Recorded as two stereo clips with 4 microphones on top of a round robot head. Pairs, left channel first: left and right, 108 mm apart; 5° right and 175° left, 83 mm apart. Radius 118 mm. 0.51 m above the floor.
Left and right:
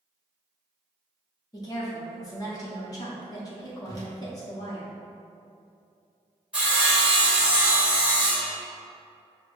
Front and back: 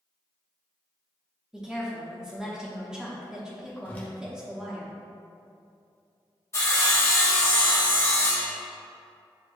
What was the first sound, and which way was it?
A woman speaking, 95° left.